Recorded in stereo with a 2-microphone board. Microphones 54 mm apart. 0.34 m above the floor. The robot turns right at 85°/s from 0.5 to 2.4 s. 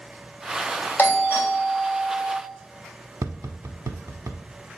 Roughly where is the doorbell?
Left.